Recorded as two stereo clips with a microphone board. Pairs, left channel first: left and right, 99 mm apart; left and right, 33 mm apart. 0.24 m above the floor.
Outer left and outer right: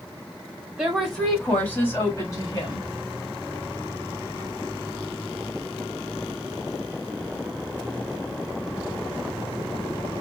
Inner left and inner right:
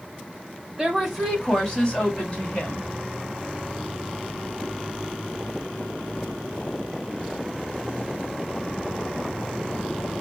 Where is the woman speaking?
5° right (ahead or behind), 1.7 m; by 2.9 s 45° left (ahead or behind), 1.8 m.